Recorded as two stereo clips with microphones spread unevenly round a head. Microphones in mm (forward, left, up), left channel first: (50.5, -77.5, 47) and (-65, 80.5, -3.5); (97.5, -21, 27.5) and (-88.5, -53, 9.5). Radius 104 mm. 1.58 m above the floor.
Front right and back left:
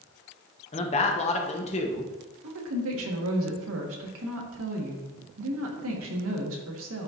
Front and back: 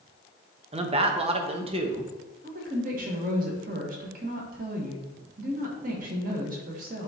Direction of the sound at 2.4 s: 140° left.